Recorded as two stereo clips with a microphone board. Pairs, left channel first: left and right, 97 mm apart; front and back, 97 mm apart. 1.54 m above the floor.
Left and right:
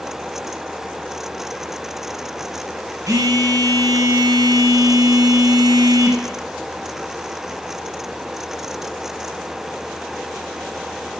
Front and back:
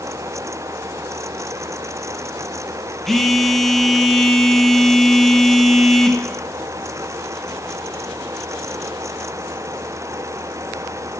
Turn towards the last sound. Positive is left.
turn(degrees=-85)